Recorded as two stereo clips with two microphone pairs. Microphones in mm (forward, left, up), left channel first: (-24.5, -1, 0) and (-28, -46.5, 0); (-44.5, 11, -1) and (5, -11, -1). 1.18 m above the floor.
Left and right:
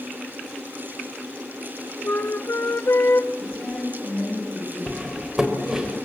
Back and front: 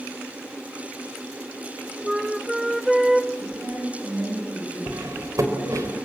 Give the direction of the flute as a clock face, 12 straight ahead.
10 o'clock.